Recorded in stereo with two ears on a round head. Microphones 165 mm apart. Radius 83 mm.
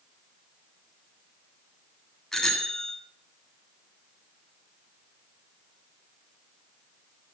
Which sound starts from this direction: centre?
A bicycle bell, at 2.3 s.